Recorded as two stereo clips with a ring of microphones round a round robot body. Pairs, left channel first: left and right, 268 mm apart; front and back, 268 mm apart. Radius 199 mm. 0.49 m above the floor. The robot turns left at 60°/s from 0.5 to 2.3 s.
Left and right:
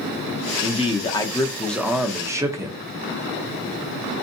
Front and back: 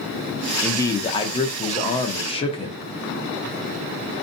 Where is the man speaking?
75° left, 0.7 m; by 2.8 s 30° right, 0.7 m.